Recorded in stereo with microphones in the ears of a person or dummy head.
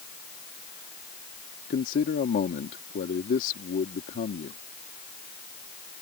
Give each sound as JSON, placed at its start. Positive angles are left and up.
{"t": 1.7, "sound": "a man speaking", "side_deg": 50}